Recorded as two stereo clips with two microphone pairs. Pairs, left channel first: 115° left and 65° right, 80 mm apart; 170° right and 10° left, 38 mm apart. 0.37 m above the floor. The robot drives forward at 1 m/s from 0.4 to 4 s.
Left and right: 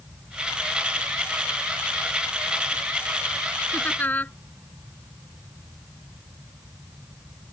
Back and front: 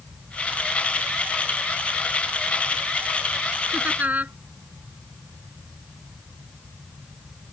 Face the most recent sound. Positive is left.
turn(degrees=50)